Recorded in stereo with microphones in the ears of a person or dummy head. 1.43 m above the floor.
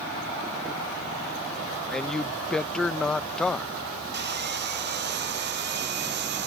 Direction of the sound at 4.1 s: 60° right (ahead or behind).